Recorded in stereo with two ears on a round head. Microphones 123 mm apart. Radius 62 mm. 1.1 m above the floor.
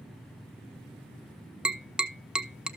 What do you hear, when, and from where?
1.6 s tapping: 5° right (ahead or behind), 0.7 m